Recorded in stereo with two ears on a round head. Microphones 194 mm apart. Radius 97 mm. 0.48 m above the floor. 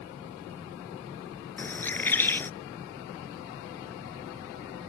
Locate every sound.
1.6 s a bird: 10° left (ahead or behind)